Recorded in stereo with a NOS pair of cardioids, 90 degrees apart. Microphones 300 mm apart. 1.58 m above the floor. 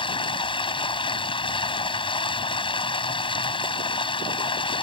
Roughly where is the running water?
Ahead.